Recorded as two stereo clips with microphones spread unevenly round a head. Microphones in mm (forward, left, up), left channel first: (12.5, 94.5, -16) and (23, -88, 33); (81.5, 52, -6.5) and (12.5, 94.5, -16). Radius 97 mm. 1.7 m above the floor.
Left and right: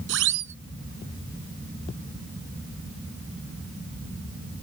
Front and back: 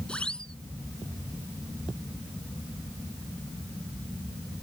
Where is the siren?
115° right.